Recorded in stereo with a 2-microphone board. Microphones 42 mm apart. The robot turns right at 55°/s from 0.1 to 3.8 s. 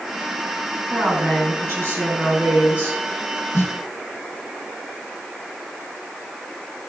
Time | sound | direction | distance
0.9 | a woman speaking | 145° right | 4.5 m
3.5 | a snare drum | 60° left (ahead or behind) | 1.0 m